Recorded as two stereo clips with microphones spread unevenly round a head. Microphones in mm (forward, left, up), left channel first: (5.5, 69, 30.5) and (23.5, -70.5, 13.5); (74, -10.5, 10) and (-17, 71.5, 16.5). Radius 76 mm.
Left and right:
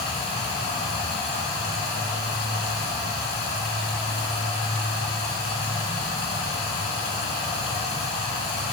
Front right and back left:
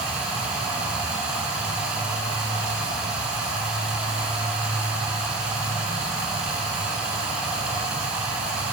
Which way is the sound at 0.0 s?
60° left.